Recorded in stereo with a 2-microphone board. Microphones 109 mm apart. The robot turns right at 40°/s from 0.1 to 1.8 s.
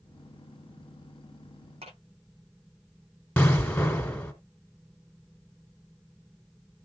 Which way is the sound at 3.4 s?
20° left (ahead or behind).